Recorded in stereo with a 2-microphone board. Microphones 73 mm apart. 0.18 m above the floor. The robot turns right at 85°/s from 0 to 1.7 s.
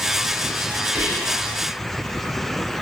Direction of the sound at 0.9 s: 105° right.